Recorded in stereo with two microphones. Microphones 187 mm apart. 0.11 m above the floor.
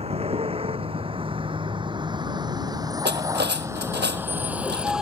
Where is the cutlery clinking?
65° right (ahead or behind).